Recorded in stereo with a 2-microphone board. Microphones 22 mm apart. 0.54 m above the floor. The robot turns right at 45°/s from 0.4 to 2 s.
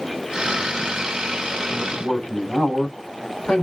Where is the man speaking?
65° left (ahead or behind), 2.5 m; by 3.6 s 60° left (ahead or behind), 2.5 m.